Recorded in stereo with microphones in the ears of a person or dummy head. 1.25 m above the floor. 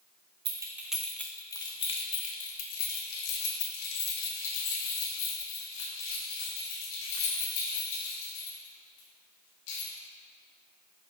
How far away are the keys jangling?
About 0.7 m.